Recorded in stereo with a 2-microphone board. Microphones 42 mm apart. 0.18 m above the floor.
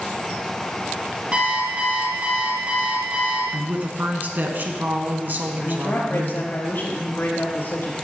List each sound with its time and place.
1.3 s an alarm clock: 35° right (ahead or behind), 3 m
3.5 s a woman speaking: 45° right (ahead or behind), 1.8 m
5.6 s a woman speaking: 55° left (ahead or behind), 3.5 m